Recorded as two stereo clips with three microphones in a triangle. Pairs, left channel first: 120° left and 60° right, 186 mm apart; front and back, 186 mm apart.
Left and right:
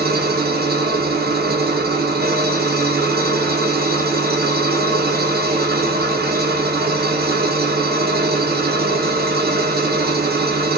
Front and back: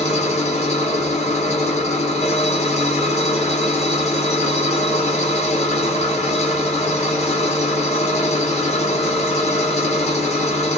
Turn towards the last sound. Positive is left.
turn(degrees=-45)